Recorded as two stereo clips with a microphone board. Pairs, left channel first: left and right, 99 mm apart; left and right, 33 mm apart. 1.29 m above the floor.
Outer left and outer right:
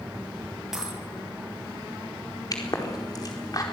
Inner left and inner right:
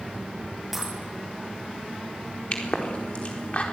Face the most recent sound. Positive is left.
turn(degrees=40)  # may be behind; listen again after turning